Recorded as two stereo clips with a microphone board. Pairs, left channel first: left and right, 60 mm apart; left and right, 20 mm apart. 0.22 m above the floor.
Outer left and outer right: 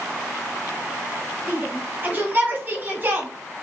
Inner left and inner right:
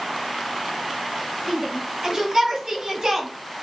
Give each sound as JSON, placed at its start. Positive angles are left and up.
{"t": 1.5, "sound": "a shout", "side_deg": -35, "distance_m": 1.3}